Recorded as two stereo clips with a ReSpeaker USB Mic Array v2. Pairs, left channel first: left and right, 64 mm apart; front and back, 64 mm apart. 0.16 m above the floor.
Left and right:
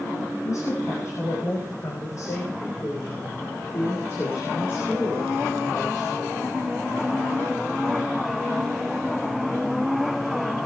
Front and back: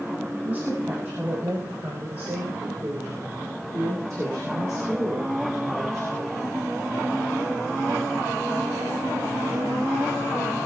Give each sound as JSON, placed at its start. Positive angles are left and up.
{"t": 0.5, "sound": "a woman speaking", "azimuth_deg": 125, "distance_m": 6.5}